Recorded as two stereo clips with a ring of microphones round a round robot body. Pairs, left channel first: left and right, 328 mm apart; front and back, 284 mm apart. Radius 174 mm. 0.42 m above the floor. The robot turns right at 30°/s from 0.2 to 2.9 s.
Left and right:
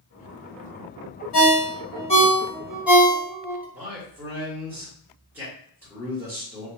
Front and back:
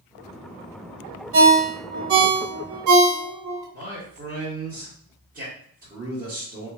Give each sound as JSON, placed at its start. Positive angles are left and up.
{"t": 1.3, "sound": "a ringtone", "azimuth_deg": 140, "distance_m": 1.1}
{"t": 3.7, "sound": "a man speaking", "azimuth_deg": -170, "distance_m": 1.3}